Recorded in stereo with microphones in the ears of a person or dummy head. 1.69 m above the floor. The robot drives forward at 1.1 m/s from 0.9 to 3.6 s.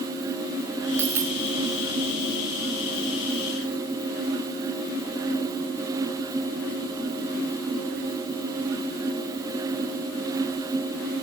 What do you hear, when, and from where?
1.0 s a dropped coin: 10° right (ahead or behind), 4.5 m; by 1.4 s 15° right (ahead or behind), 4 m